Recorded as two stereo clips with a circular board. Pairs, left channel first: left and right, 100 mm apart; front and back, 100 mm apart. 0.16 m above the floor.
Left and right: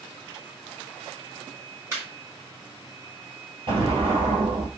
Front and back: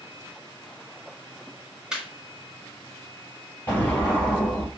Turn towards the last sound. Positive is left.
turn(degrees=-70)